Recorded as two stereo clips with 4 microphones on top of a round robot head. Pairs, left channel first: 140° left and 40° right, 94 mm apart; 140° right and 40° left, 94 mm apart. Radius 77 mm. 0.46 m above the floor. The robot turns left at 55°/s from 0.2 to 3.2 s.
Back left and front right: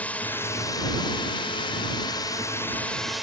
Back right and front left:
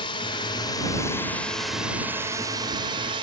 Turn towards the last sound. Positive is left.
turn(degrees=50)